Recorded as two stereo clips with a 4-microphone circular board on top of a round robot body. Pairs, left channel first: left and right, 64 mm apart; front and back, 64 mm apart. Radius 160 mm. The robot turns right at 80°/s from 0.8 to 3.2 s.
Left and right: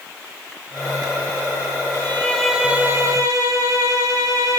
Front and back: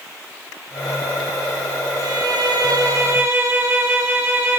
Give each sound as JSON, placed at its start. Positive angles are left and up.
{"t": 1.9, "sound": "a violin", "azimuth_deg": 135, "distance_m": 3.5}